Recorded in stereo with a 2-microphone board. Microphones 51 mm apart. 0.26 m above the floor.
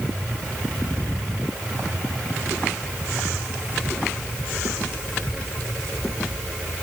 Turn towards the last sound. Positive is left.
No sound to turn to.